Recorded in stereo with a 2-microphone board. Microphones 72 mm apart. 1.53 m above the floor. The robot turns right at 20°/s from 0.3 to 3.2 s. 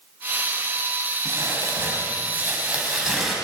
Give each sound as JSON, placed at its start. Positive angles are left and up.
{"t": 1.2, "sound": "crumpling", "azimuth_deg": -45, "distance_m": 4.5}